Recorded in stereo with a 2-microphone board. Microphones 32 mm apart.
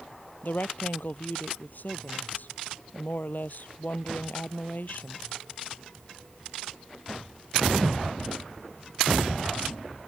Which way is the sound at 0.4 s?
65° left (ahead or behind).